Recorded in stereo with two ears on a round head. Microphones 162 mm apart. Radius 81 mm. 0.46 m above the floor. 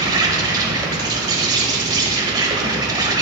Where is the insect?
20° right (ahead or behind), 1.0 m.